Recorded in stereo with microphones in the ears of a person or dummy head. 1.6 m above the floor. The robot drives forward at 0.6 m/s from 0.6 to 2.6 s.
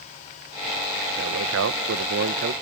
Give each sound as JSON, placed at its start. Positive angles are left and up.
{"t": 1.2, "sound": "a man speaking", "side_deg": -65}